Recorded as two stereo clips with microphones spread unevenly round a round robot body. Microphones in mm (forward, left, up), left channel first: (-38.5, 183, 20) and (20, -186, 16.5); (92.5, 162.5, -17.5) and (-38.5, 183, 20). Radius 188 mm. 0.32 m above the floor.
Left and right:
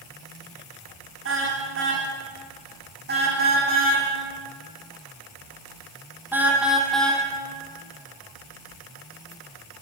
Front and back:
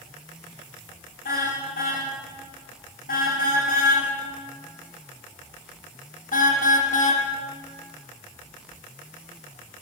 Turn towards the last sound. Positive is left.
turn(degrees=15)